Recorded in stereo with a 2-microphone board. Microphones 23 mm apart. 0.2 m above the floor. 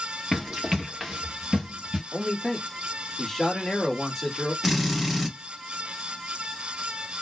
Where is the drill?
10° right (ahead or behind), 1.6 m.